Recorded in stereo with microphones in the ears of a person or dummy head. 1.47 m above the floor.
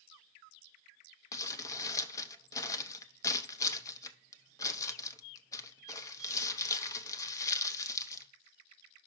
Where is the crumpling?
20° left (ahead or behind), 0.7 m.